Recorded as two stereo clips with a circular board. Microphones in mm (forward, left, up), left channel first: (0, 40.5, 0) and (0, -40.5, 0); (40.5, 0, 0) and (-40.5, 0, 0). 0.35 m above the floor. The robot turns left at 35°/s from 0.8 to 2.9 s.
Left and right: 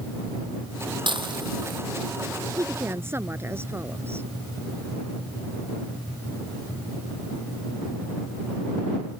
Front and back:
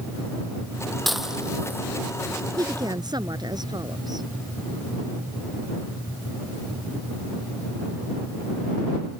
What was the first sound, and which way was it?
Dishes clattering, 90° right.